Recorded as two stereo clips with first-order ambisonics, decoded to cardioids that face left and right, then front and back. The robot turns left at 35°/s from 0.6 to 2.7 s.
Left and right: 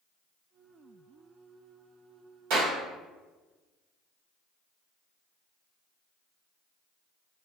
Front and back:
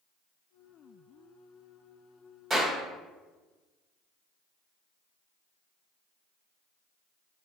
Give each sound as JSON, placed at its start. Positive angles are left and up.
{"t": 2.5, "sound": "a clap", "azimuth_deg": -105, "distance_m": 1.7}